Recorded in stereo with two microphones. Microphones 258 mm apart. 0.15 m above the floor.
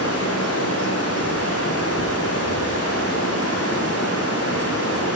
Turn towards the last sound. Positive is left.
turn(degrees=75)  # may be behind; listen again after turning